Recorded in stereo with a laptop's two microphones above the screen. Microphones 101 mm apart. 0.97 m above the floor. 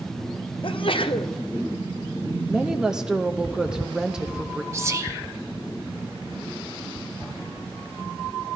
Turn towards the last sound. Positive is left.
turn(degrees=-30)  # may be behind; listen again after turning